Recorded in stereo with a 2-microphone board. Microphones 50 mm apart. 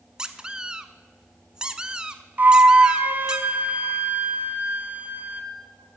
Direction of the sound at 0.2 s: 15° right (ahead or behind).